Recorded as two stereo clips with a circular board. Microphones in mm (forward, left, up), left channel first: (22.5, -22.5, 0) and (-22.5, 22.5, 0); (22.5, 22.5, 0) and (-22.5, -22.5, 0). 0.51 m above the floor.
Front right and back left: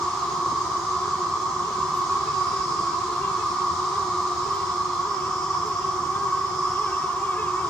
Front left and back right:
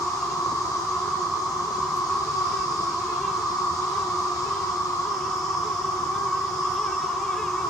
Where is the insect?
35° left, 1.6 m.